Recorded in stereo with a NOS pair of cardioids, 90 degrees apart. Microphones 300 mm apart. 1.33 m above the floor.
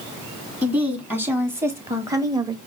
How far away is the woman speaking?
About 2.5 m.